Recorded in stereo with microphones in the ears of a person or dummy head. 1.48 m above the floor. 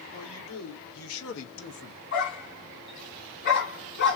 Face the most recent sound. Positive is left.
turn(degrees=45)  # may be behind; listen again after turning